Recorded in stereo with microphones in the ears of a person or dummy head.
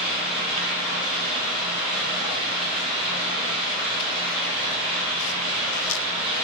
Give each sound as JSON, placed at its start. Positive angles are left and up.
{"t": 0.0, "sound": "running water", "side_deg": 30, "distance_m": 1.6}